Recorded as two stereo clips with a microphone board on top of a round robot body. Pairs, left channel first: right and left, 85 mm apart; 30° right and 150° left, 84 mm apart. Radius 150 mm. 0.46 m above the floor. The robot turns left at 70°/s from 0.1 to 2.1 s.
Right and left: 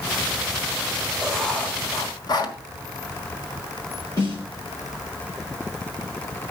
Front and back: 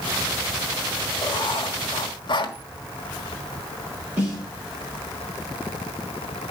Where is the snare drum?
140° right, 7 m.